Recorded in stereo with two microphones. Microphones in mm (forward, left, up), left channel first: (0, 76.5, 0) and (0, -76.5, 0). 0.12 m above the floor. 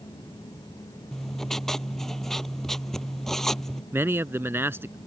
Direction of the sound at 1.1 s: Centre (ahead or behind).